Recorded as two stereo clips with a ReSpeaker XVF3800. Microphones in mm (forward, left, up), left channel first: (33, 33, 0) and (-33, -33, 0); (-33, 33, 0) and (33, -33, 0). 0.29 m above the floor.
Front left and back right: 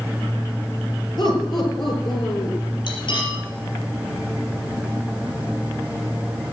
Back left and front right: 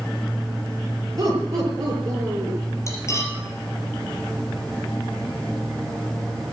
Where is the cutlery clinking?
80° left, 4.5 m.